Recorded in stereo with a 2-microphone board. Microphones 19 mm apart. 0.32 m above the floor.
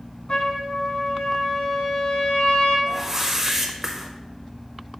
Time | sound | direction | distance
0.3 | a trumpet | 55° left (ahead or behind) | 1.7 m
2.9 | a whoosh | 15° right (ahead or behind) | 0.8 m